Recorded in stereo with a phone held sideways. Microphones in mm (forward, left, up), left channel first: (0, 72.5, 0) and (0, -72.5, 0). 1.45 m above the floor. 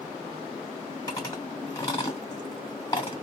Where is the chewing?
25° left (ahead or behind), 1.7 m.